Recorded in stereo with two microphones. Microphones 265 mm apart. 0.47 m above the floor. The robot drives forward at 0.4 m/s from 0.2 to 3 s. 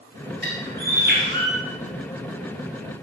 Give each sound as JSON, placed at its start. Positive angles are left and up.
{"t": 0.4, "sound": "a bird", "side_deg": -40, "distance_m": 9.0}